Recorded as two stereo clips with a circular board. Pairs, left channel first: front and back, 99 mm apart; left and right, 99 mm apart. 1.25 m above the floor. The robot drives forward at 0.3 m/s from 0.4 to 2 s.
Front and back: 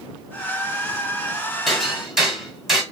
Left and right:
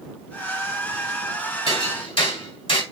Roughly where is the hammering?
Left.